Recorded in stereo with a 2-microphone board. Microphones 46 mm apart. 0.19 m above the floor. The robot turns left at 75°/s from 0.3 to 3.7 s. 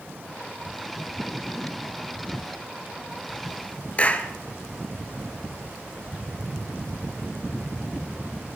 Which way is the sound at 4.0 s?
30° left (ahead or behind).